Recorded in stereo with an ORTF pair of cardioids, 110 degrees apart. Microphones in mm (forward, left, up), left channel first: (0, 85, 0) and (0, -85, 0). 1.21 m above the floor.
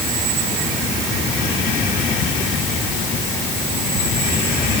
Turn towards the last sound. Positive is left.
No sound to turn to.